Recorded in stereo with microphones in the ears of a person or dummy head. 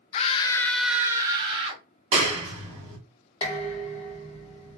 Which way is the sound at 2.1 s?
40° right (ahead or behind).